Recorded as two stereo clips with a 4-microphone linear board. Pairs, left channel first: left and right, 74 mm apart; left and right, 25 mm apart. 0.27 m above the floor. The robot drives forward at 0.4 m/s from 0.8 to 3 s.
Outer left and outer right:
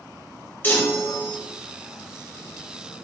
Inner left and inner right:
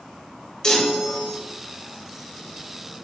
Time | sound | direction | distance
0.6 | a chime | 30° left (ahead or behind) | 0.7 m